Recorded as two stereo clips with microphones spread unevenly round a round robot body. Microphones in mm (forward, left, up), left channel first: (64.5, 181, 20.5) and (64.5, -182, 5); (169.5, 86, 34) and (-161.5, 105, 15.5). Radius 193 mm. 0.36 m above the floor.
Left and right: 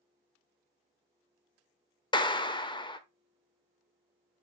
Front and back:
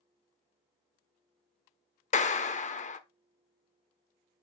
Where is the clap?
30° left, 0.9 m.